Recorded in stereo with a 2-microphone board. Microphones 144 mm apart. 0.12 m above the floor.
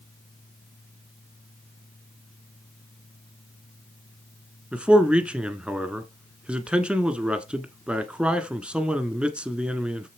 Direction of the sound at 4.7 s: 5° right (ahead or behind).